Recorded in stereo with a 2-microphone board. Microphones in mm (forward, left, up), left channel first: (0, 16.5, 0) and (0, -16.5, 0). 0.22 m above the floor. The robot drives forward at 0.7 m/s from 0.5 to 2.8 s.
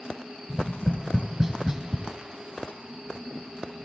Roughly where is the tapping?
Centre.